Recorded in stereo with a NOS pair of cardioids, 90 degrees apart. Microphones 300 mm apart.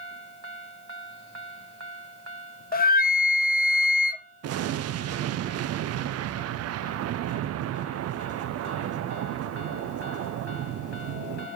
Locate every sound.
2.7 s a flute: 30° left, 0.6 m
4.4 s an explosion: 55° right, 0.6 m